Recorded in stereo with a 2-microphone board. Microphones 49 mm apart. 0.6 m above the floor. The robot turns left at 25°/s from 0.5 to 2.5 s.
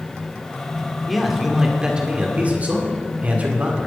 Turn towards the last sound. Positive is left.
turn(degrees=-35)